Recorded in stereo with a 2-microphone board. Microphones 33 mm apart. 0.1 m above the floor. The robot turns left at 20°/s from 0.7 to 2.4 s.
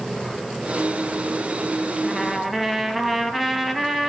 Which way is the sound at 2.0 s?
10° left (ahead or behind).